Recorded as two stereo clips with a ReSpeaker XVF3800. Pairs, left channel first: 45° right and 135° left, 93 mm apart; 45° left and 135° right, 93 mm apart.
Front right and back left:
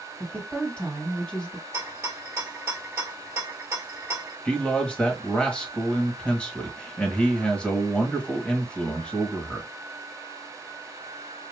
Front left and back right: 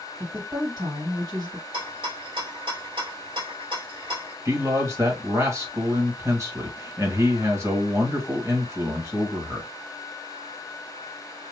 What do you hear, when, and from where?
0.2 s a woman speaking: 120° right, 1.7 m
1.7 s a rattle: 160° right, 1.3 m
4.5 s a man speaking: 115° right, 1.2 m